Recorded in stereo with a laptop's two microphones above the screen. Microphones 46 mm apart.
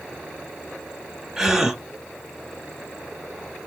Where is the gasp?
10° right (ahead or behind), 1.0 m.